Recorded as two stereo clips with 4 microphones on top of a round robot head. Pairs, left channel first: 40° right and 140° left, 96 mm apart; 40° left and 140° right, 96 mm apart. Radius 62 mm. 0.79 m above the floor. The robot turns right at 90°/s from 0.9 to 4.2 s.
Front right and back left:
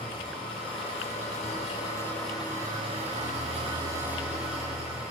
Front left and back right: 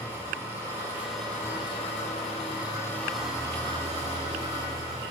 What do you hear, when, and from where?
0.0 s an engine running: 75° right, 8 m; by 5.1 s 135° right, 8 m